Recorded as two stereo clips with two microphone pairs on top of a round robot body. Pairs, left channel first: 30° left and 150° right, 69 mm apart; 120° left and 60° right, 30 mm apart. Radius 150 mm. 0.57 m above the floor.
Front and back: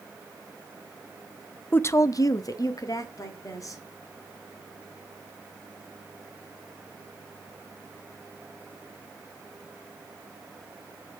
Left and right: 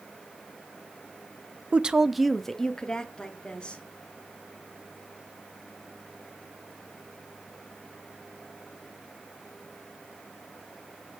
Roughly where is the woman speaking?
Ahead.